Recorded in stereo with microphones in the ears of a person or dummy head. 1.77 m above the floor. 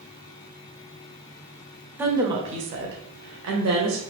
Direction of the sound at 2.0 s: 10° right (ahead or behind).